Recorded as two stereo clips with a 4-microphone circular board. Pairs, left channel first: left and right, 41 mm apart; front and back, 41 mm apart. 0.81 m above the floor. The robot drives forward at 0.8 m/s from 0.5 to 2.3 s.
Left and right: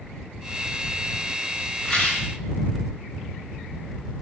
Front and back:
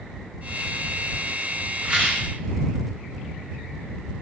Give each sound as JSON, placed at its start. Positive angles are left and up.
{"t": 1.8, "sound": "a rattle", "azimuth_deg": 145, "distance_m": 0.6}